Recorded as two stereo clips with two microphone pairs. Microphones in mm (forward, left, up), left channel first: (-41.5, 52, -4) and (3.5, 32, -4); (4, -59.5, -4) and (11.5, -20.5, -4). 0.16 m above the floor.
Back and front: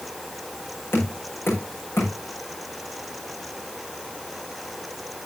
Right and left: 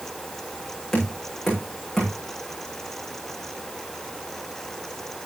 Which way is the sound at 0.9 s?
175° right.